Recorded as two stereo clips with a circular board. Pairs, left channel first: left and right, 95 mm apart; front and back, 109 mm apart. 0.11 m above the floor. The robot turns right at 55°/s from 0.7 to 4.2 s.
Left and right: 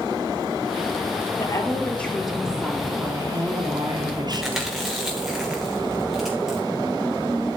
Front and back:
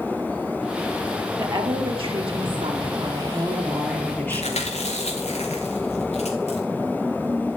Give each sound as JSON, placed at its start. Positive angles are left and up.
{"t": 1.4, "sound": "a woman speaking", "azimuth_deg": 135, "distance_m": 2.5}
{"t": 4.3, "sound": "chewing", "azimuth_deg": 0, "distance_m": 3.0}